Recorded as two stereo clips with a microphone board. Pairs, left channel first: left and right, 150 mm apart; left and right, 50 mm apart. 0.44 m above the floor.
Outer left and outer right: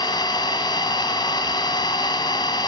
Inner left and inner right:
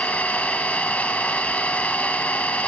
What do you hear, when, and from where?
0.0 s an engine running: 30° left (ahead or behind), 2.5 m